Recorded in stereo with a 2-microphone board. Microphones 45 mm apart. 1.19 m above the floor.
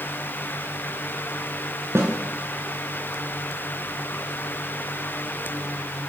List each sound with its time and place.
1.9 s a snare drum: 75° right (ahead or behind), 7 m